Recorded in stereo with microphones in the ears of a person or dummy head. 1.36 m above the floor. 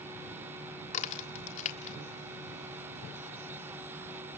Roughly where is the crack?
Left.